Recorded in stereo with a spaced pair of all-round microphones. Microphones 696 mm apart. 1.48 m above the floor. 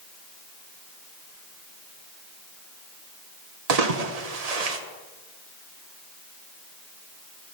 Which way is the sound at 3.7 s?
60° right (ahead or behind).